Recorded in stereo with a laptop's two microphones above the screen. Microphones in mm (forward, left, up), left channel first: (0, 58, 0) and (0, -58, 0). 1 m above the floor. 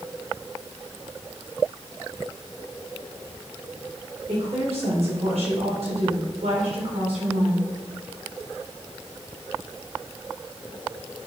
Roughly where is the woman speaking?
Right.